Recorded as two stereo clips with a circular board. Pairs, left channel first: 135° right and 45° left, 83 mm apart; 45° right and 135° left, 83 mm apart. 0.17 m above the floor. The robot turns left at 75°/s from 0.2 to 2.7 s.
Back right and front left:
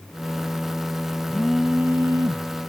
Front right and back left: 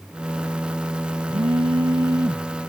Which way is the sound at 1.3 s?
155° left.